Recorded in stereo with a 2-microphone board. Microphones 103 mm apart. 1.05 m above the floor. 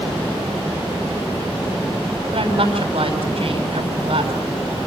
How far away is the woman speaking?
About 7 m.